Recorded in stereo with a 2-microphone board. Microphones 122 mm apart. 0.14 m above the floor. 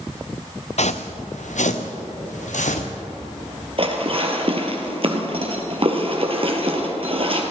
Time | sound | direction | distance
0.8 | footsteps | 65° left (ahead or behind) | 0.9 m
3.8 | dishes clattering | 50° right (ahead or behind) | 2.5 m